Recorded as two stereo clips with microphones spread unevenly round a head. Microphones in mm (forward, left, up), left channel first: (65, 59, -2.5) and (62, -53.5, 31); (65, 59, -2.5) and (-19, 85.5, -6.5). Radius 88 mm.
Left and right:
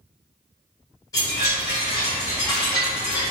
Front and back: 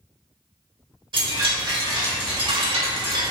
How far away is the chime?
About 1.6 m.